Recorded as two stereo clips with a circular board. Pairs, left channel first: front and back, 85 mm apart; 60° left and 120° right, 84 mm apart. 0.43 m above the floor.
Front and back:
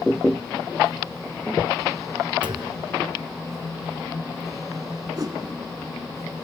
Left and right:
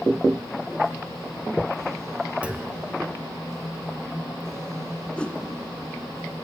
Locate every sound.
2.4 s a clunk: 165° left, 1.4 m
5.2 s a whoosh: 135° left, 1.3 m